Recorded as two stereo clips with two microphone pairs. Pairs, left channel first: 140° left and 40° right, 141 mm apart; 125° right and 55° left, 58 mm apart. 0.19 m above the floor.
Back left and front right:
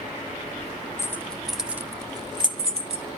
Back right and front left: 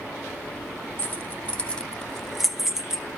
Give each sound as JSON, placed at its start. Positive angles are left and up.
{"t": 1.0, "sound": "keys jangling", "azimuth_deg": -155, "distance_m": 1.0}